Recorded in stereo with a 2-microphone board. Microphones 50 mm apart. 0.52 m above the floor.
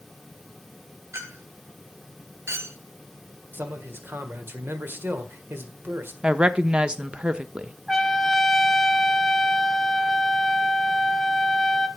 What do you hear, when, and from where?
1.1 s a clink: 70° right (ahead or behind), 1.8 m
3.5 s a man speaking: 55° right (ahead or behind), 1.6 m
6.2 s a woman speaking: 20° right (ahead or behind), 0.6 m
7.9 s a trumpet: 5° left (ahead or behind), 0.8 m